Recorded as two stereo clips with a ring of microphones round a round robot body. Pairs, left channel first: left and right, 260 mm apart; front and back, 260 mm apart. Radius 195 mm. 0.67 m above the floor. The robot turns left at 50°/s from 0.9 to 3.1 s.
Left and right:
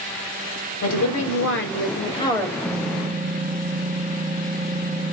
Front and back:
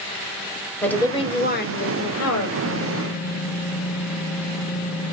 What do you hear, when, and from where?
0.8 s a woman speaking: 85° left, 3.5 m; by 2.5 s straight ahead, 3.5 m
2.6 s typing on a keyboard: 15° right, 1.0 m; by 5.1 s 35° right, 1.0 m